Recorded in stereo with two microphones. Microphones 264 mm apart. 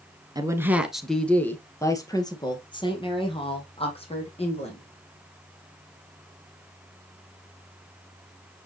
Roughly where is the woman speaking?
Centre.